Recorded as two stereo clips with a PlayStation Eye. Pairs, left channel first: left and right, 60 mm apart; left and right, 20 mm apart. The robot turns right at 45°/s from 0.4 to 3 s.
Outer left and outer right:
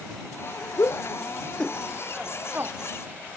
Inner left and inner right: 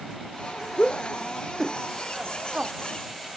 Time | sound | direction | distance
0.8 | a shout | 50° left (ahead or behind) | ?